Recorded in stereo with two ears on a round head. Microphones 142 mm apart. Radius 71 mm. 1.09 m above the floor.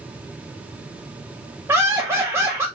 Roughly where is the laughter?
Centre.